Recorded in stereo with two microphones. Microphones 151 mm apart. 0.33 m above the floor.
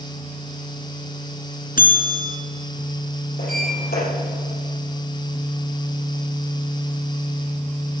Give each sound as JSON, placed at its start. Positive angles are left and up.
{"t": 1.8, "sound": "a bell", "side_deg": 70, "distance_m": 2.5}
{"t": 3.4, "sound": "a sliding door", "side_deg": 80, "distance_m": 6.5}